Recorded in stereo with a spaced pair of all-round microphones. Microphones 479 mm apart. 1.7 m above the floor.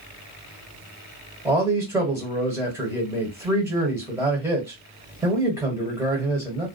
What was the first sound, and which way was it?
A man speaking, 5° right (ahead or behind).